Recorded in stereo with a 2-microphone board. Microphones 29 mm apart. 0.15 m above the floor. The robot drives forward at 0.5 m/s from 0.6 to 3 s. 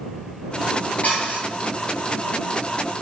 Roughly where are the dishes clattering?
Left.